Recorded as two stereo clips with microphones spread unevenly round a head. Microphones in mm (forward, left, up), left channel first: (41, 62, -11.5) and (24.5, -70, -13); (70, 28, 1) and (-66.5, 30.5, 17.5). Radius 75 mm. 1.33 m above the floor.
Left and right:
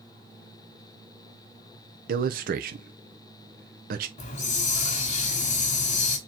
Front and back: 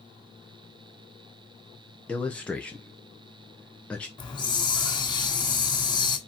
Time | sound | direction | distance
2.1 | a man speaking | 80° right | 0.6 m
4.2 | a hiss | 60° left | 1.8 m